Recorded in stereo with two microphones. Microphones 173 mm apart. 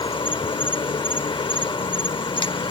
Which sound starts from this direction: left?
An insect, at 0.0 s.